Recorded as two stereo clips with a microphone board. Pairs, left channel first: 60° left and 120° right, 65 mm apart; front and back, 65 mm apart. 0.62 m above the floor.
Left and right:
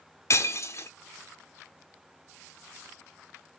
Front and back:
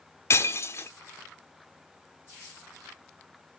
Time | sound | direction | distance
0.3 | breaking glass | 35° left | 0.6 m